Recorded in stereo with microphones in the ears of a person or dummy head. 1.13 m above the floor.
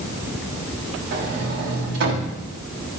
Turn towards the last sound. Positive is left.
turn(degrees=-60)  # may be behind; listen again after turning